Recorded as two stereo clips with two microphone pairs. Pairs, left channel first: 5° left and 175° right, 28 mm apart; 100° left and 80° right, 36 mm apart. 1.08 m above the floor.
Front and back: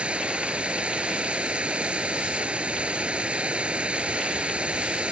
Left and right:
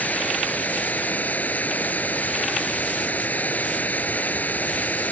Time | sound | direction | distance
0.0 | running water | 140° left | ?